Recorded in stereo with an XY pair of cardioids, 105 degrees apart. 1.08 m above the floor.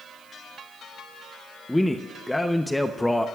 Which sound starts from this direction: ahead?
A man speaking, at 1.7 s.